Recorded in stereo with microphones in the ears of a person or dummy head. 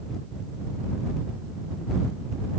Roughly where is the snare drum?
No snare drum in this recording.